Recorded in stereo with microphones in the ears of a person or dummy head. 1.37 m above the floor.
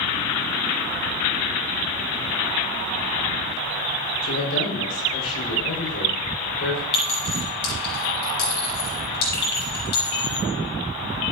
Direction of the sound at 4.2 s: 75° left (ahead or behind).